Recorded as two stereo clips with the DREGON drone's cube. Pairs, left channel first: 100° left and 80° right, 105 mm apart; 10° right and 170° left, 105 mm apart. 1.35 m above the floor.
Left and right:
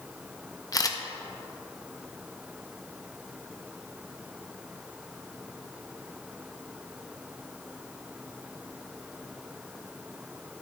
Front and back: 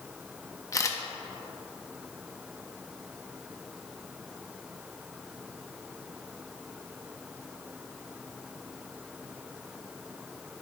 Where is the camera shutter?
45° left, 0.6 m.